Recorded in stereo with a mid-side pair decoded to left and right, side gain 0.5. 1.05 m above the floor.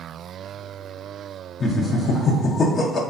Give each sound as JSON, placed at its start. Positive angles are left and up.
{"t": 1.6, "sound": "laughter", "azimuth_deg": 45, "distance_m": 0.5}